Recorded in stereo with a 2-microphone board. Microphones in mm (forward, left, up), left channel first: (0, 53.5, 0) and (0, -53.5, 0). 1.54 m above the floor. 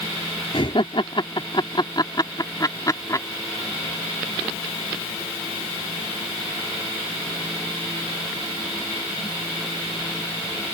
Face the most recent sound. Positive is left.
turn(degrees=30)  # may be behind; listen again after turning